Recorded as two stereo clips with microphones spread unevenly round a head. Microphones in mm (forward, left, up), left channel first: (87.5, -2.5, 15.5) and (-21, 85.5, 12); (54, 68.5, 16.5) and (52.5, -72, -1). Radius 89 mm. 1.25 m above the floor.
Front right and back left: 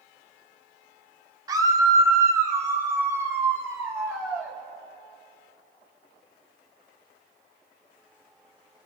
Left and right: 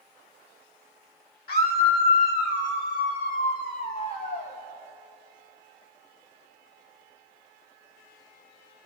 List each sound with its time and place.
1.5 s a scream: 75° left, 3 m; by 4.5 s 65° left, 6 m